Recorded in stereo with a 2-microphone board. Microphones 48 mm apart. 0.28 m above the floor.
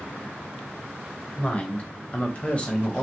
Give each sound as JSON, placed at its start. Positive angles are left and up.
{"t": 1.4, "sound": "a woman speaking", "side_deg": 25, "distance_m": 1.2}